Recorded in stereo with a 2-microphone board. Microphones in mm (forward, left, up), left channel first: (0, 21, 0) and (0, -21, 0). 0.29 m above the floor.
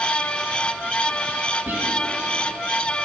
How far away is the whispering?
About 1.8 m.